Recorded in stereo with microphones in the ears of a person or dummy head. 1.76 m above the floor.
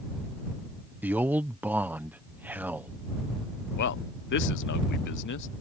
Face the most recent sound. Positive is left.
turn(degrees=65)  # may be behind; listen again after turning